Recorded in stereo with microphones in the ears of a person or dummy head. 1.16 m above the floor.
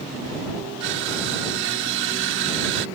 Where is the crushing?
70° right (ahead or behind).